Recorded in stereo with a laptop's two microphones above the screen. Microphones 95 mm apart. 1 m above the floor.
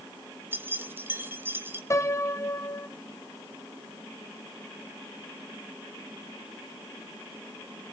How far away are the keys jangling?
About 1.0 m.